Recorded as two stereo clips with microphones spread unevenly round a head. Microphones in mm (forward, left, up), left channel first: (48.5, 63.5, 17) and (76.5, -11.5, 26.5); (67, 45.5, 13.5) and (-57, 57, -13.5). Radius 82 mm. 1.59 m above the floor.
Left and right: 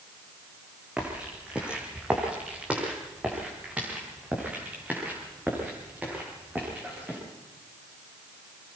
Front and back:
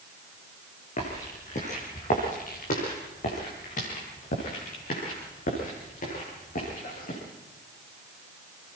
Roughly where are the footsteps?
Ahead.